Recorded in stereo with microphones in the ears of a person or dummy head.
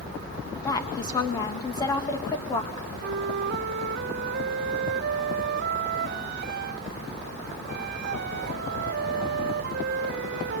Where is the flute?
55° right (ahead or behind), 0.8 m.